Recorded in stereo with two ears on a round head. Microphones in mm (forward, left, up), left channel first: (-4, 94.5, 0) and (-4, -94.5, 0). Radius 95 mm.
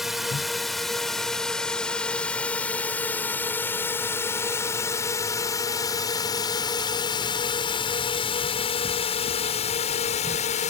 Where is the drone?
Centre (ahead or behind); by 10.7 s 35° left (ahead or behind).